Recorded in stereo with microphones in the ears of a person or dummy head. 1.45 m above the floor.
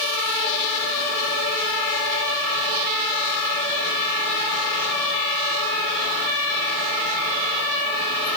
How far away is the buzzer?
I don't hear a buzzer.